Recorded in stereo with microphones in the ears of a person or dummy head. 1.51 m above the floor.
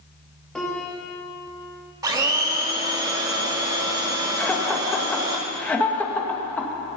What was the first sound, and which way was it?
A piano, 5° left (ahead or behind).